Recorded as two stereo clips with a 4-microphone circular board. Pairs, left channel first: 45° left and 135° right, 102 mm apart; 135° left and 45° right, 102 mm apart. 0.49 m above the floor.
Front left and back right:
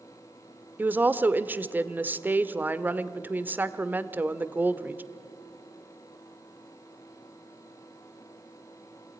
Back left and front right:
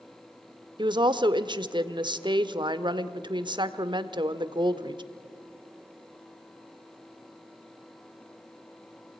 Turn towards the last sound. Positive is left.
turn(degrees=-65)